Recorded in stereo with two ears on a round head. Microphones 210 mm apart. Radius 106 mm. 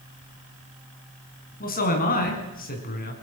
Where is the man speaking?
40° left (ahead or behind), 5.5 m.